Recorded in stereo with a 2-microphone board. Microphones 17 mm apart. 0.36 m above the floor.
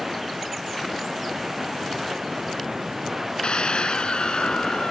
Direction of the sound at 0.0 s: 20° right (ahead or behind).